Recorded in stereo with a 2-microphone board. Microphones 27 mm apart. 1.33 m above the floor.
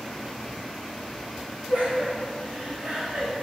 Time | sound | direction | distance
1.7 | laughter | 55° right (ahead or behind) | 4 m